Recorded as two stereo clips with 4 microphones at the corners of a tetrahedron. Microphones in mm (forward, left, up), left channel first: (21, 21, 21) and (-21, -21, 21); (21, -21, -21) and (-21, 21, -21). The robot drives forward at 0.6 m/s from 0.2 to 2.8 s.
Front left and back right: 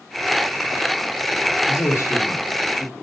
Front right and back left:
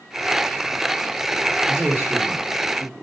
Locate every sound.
1.7 s a man speaking: 75° left, 1.5 m; by 2.9 s 105° left, 1.5 m